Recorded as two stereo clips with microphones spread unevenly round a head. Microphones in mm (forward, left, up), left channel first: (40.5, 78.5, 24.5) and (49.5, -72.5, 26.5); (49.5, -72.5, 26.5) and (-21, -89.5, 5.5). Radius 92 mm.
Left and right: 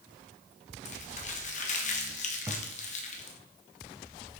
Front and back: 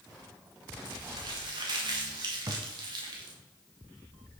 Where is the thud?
145° right, 1.7 m.